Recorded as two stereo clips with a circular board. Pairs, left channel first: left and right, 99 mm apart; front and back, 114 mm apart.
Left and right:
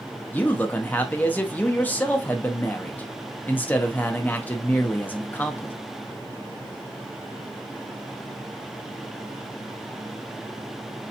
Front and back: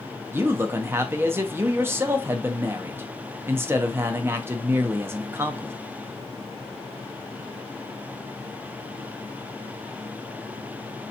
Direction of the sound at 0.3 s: 140° left.